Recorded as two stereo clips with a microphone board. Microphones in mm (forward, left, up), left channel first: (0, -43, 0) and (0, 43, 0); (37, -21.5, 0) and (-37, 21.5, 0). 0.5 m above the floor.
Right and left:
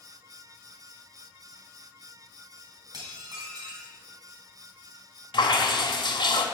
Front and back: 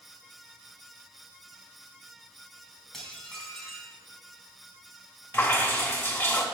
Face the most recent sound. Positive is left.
turn(degrees=-95)